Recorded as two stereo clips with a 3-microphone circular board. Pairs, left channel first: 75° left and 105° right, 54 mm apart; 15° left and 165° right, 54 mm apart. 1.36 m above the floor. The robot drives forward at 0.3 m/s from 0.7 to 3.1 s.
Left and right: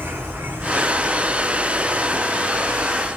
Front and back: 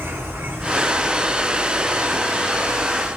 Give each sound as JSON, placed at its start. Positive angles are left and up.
{"t": 0.0, "sound": "an insect", "azimuth_deg": -140, "distance_m": 1.6}